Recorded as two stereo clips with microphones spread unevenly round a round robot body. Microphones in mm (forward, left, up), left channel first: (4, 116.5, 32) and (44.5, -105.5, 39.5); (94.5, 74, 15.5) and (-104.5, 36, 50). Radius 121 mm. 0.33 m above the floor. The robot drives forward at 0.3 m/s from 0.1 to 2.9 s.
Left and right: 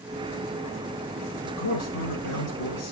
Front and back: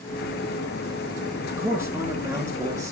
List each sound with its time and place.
1.4 s a man speaking: 110° left, 5.5 m; by 2.9 s 115° left, 6 m